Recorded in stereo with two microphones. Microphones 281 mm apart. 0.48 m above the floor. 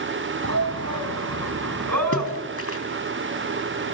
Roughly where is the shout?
Right.